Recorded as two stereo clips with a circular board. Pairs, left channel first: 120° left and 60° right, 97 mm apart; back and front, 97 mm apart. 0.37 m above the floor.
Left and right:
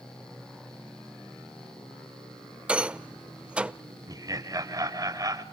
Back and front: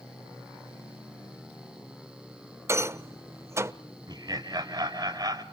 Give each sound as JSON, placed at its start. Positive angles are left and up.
{"t": 2.7, "sound": "a rattle", "azimuth_deg": 5, "distance_m": 0.5}
{"t": 4.1, "sound": "laughter", "azimuth_deg": -25, "distance_m": 1.6}